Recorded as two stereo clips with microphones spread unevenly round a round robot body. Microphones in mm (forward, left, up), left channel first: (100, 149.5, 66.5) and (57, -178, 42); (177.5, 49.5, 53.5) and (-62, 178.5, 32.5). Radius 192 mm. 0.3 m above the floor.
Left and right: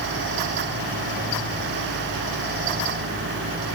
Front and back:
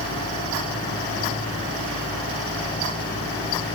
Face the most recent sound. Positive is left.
No sound to turn to.